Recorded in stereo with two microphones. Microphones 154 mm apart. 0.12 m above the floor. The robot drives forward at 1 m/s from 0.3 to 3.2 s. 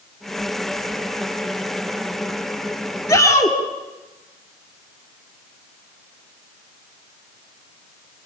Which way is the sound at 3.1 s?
20° left (ahead or behind).